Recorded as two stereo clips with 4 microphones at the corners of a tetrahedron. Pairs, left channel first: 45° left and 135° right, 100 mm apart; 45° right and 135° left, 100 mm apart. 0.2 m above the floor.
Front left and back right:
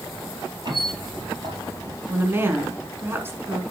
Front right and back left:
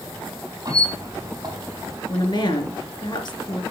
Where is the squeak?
175° right, 4 m.